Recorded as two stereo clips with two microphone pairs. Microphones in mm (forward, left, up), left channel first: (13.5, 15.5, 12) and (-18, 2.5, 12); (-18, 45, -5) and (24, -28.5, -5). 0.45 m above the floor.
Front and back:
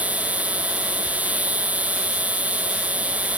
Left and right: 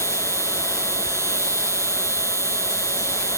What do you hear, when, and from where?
0.0 s an insect: 115° right